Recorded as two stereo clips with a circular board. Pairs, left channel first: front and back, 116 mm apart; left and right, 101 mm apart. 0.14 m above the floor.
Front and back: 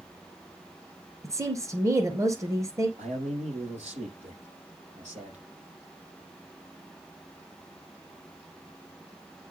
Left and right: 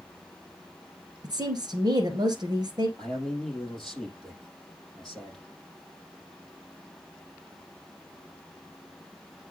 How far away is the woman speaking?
About 2.5 m.